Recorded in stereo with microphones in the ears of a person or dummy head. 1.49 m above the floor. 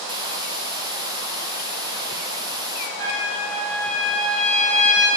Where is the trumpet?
80° right, 8 m.